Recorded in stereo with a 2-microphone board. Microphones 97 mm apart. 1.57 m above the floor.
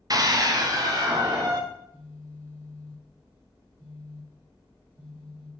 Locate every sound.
0.1 s a scream: 40° right (ahead or behind), 0.9 m
1.7 s a phone buzzing: 40° left (ahead or behind), 3 m